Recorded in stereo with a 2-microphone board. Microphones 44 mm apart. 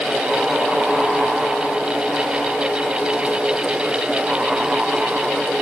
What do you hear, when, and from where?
Only background noise.